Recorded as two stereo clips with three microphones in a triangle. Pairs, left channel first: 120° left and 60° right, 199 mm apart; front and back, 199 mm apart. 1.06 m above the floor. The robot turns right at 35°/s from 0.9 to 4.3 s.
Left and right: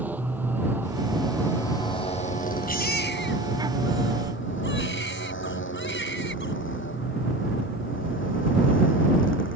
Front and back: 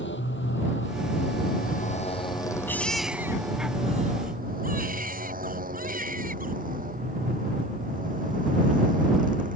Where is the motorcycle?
20° left; by 9.6 s 130° left.